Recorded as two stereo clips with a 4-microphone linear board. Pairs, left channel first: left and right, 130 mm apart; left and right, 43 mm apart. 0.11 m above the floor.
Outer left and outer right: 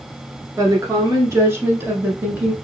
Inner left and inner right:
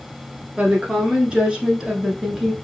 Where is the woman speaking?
25° right (ahead or behind), 1.2 m; by 2.5 s 10° right (ahead or behind), 1.3 m.